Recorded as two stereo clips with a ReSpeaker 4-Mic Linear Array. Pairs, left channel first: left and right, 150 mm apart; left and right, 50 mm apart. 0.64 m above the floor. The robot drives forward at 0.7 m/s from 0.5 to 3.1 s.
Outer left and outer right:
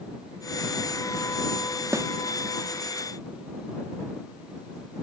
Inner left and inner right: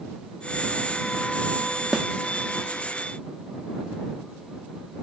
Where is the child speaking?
I don't hear a child speaking.